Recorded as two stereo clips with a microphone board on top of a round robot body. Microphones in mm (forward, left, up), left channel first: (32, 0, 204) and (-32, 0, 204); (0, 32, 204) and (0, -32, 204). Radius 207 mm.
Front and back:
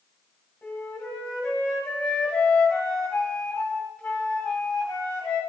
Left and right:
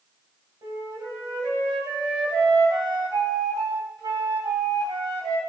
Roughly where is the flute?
Right.